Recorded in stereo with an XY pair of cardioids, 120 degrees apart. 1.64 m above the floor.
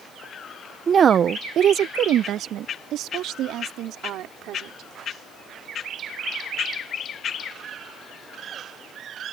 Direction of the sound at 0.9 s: 30° right.